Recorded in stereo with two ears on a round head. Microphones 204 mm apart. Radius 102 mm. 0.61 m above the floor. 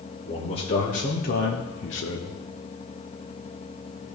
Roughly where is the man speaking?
Left.